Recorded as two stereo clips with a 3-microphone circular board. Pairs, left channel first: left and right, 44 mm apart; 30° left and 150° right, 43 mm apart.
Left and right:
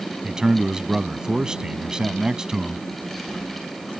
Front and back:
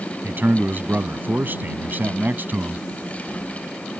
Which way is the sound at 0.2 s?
155° right.